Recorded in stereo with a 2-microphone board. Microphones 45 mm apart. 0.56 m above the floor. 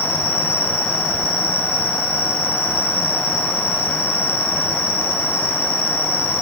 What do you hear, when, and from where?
0.0 s an insect: 65° left (ahead or behind), 9 m